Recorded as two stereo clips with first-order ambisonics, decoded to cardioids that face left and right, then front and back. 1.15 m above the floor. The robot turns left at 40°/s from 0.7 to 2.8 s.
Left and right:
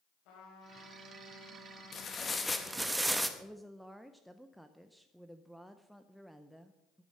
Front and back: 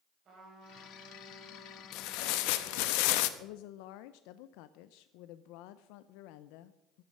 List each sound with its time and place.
0.2 s a trumpet: 120° left, 4.5 m; by 2.9 s 35° left, 4.5 m
1.9 s tearing paper: 30° left, 0.9 m; by 3.3 s 5° right, 0.9 m
3.4 s a woman speaking: straight ahead, 0.5 m